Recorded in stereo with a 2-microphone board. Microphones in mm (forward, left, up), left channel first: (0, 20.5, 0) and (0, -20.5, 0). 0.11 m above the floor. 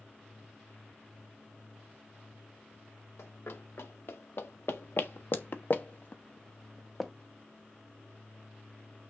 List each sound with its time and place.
3.2 s running footsteps: 80° left, 2 m; by 7.1 s centre (ahead or behind), 0.9 m